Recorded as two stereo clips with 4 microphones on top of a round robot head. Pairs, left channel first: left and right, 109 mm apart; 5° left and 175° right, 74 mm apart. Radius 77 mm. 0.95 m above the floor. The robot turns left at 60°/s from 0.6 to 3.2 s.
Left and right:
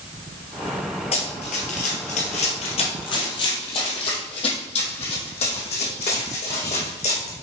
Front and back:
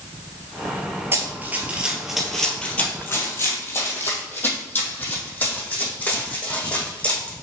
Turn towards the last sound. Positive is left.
turn(degrees=75)